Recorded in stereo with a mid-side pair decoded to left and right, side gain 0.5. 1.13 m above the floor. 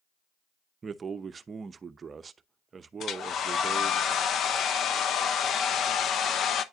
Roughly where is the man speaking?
Ahead right.